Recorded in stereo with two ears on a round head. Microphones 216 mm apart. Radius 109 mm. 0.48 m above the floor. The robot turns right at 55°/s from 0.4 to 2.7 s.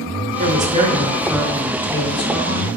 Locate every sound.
0.4 s a woman speaking: 65° right, 0.9 m; by 2.7 s 60° left, 0.9 m